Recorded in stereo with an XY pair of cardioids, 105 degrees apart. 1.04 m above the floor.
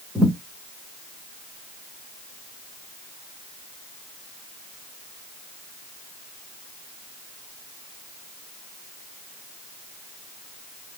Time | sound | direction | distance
0.1 | a thud | 10° left | 2.5 m